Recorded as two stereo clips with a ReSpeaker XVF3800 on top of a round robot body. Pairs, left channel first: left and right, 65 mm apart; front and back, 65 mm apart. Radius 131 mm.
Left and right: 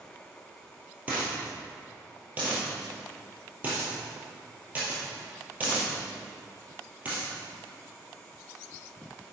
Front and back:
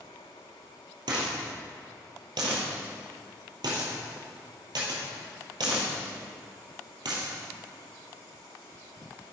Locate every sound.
1.1 s a dropped coin: 160° right, 2 m